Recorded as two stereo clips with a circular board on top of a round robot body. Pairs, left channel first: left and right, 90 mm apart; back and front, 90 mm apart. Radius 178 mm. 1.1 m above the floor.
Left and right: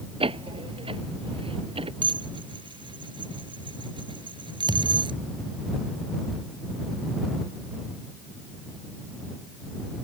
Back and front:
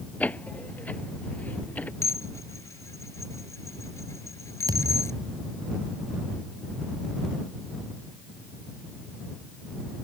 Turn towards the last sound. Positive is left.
turn(degrees=-50)